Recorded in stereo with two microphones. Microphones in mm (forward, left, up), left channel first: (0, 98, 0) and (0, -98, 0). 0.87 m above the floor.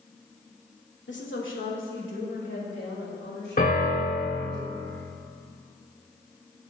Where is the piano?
50° left (ahead or behind), 2 m.